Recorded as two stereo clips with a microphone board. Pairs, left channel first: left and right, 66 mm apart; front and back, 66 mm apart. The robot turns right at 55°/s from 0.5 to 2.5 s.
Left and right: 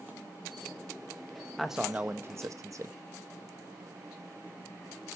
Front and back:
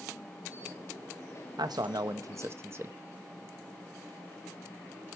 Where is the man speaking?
Straight behind, 1.1 m; by 3.0 s 130° right, 1.1 m.